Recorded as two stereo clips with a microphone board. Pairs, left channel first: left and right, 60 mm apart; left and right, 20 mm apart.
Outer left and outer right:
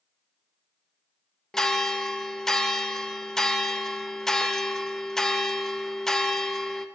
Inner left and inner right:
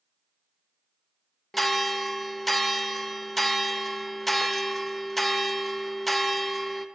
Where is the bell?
10° left (ahead or behind), 0.5 m.